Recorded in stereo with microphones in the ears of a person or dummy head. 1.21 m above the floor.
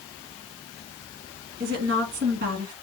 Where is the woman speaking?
50° right (ahead or behind), 2 m.